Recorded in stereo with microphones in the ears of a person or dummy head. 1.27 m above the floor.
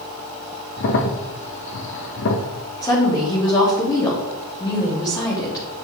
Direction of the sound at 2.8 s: 25° left (ahead or behind).